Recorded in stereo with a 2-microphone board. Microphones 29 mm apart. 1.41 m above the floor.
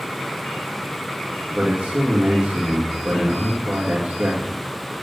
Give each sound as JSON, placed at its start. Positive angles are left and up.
{"t": 1.5, "sound": "a man speaking", "side_deg": -55, "distance_m": 2.0}